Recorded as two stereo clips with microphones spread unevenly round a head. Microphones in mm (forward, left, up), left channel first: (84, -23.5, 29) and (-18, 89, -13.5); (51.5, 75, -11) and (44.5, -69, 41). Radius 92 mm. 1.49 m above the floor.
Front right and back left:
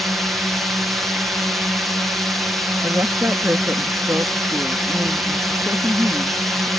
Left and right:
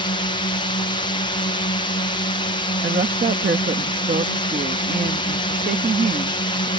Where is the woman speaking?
145° right.